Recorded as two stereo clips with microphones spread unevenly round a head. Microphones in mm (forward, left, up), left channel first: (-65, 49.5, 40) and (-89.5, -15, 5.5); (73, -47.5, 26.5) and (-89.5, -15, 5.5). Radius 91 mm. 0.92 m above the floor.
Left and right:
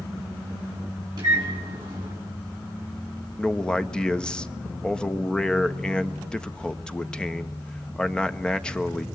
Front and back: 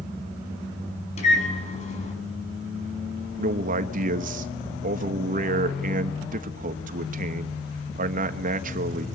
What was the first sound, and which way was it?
A microwave, 60° right.